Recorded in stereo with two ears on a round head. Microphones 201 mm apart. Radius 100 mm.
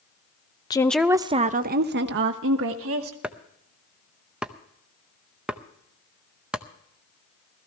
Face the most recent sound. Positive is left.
turn(degrees=-5)  # may be behind; listen again after turning